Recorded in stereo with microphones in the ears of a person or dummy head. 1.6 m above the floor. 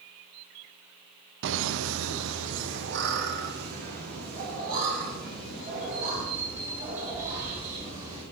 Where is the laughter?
65° right (ahead or behind), 0.6 m; by 8.2 s 40° right (ahead or behind), 4 m.